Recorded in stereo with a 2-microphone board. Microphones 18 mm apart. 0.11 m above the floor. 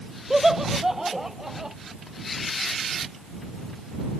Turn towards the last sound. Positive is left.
turn(degrees=-20)  # may be behind; listen again after turning